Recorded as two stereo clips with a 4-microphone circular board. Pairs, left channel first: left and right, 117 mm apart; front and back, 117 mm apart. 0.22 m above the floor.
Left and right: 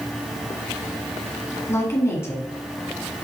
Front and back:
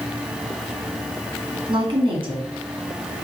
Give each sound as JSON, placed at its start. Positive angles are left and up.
{"t": 1.7, "sound": "a woman speaking", "azimuth_deg": 150, "distance_m": 1.9}